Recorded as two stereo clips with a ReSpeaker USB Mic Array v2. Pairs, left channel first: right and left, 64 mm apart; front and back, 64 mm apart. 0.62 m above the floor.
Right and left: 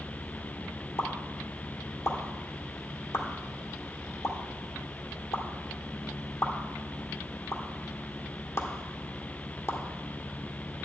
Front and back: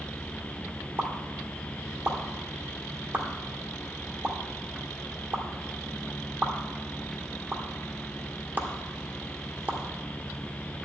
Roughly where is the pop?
Behind right.